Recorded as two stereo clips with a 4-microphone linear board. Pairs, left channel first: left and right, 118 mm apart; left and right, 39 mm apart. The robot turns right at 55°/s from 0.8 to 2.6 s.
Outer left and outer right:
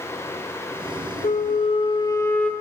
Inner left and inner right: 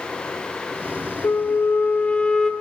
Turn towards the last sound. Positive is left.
turn(degrees=175)